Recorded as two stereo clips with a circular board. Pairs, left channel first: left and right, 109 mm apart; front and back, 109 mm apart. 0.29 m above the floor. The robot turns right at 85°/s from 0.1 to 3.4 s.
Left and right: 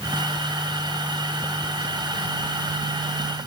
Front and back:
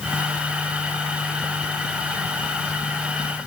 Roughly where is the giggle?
No giggle in this recording.